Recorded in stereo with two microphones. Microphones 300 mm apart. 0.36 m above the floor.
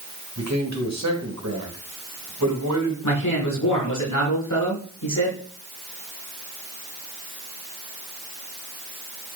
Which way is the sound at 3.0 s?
80° left.